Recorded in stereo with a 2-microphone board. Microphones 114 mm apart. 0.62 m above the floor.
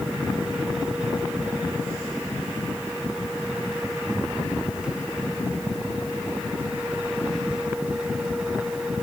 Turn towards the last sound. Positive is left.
No sound to turn to.